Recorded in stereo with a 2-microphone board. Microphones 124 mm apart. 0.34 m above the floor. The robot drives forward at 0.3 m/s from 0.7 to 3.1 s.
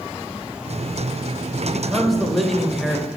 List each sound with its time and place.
1.6 s a man speaking: centre (ahead or behind), 1.1 m